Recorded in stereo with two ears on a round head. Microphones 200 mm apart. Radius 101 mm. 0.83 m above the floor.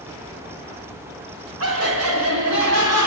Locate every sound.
1.6 s laughter: 70° right (ahead or behind), 5.5 m; by 3.1 s 80° right, 7 m